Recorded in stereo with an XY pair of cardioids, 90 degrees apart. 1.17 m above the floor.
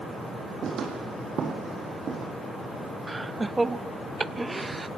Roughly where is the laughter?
Ahead.